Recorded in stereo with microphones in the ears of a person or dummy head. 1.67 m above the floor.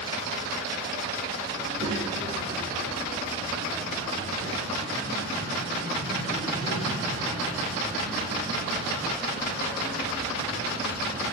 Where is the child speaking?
65° right (ahead or behind), 1.5 m; by 11.2 s 55° right (ahead or behind), 11.5 m.